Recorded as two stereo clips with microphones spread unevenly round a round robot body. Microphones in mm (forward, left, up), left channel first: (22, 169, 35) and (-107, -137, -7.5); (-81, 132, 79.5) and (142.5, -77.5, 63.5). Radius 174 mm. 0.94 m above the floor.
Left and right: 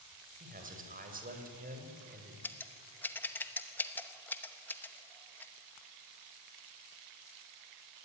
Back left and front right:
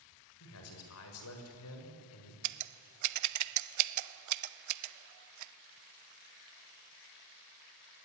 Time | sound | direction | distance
0.4 | a man speaking | straight behind | 5 m
2.4 | scissors | 20° right | 0.7 m